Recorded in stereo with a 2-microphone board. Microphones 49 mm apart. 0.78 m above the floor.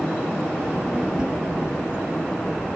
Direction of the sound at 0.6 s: 20° right (ahead or behind).